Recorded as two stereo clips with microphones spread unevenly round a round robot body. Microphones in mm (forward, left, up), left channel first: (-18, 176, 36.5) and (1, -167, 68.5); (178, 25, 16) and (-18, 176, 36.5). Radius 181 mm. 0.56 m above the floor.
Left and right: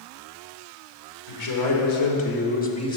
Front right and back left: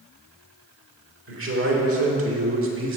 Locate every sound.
1.3 s a man speaking: 115° left, 2 m; by 3.0 s 165° left, 1.2 m